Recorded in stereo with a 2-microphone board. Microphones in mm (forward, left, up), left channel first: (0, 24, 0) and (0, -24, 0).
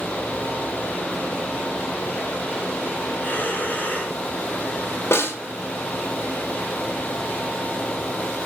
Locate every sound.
3.2 s breathing: 30° left (ahead or behind), 3 m
5.1 s a snare drum: 65° left (ahead or behind), 2 m